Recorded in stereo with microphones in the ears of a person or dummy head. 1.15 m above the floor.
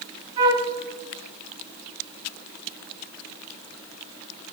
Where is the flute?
30° right (ahead or behind), 2 m.